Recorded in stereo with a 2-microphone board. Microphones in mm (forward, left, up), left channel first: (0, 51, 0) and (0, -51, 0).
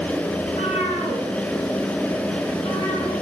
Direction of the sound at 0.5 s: 85° left.